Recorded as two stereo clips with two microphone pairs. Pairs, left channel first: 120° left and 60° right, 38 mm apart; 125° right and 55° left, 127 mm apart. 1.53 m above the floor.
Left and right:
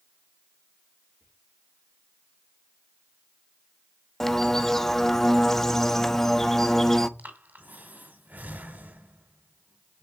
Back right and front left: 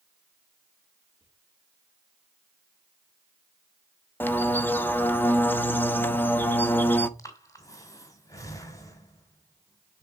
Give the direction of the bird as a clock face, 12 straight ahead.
6 o'clock.